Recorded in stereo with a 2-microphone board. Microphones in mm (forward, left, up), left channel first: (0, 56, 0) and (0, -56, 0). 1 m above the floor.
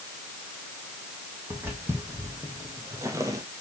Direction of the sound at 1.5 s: 15° right (ahead or behind).